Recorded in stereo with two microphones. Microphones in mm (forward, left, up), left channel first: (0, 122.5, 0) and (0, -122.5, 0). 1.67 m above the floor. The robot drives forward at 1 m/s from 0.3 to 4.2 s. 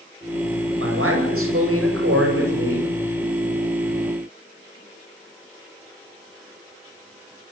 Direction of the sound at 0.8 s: 60° right (ahead or behind).